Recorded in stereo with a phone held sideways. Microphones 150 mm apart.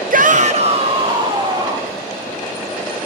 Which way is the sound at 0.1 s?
65° right (ahead or behind).